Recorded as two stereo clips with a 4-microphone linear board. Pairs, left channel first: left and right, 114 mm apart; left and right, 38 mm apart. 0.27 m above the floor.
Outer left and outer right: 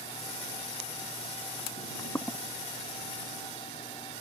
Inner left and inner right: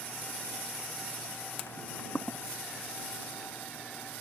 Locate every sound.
1.8 s footsteps: 20° left (ahead or behind)